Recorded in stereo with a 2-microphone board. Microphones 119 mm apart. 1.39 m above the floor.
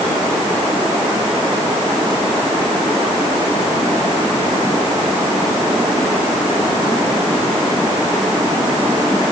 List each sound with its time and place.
Only background noise.